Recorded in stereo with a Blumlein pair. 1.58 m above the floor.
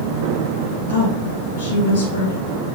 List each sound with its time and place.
0.9 s a woman speaking: 65° left, 1.6 m